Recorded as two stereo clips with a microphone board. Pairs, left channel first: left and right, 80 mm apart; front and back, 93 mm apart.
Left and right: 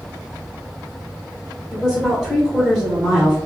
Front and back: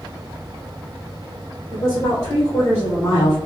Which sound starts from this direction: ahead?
A woman speaking, at 1.7 s.